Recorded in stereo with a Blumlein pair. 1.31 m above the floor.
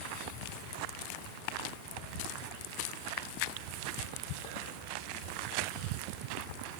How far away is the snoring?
I don't hear snoring.